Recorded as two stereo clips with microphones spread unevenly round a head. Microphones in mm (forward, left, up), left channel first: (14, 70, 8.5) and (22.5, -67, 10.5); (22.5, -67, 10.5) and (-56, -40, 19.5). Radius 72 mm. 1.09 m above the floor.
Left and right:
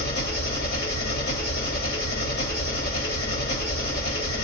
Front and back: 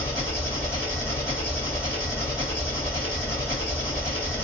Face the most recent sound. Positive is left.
turn(degrees=85)